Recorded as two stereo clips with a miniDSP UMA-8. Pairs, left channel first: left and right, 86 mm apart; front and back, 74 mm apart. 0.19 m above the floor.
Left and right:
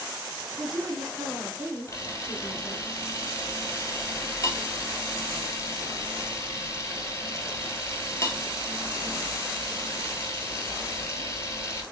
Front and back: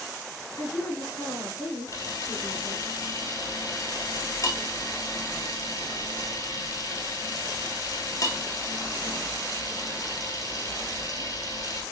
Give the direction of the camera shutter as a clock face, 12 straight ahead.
11 o'clock.